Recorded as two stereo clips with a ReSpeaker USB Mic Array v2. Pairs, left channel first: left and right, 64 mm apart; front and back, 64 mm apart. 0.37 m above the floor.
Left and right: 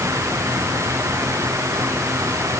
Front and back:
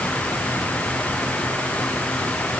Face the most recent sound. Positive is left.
No sound to turn to.